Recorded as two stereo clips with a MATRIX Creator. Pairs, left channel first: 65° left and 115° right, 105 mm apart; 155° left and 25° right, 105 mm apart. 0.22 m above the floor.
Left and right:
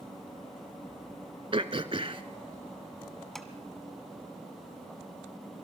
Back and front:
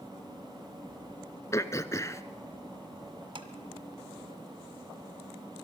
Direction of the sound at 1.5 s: 145° right.